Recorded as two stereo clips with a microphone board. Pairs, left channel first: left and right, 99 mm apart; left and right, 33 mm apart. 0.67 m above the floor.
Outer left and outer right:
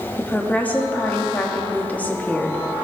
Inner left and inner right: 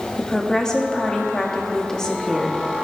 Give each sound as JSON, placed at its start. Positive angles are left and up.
{"t": 0.2, "sound": "a woman speaking", "side_deg": 15, "distance_m": 1.0}